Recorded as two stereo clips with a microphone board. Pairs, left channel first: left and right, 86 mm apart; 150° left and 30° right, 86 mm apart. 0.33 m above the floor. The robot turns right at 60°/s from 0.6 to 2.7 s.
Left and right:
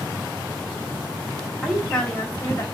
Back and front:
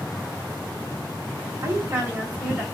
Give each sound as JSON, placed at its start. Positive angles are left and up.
{"t": 1.6, "sound": "a woman speaking", "azimuth_deg": -10, "distance_m": 1.6}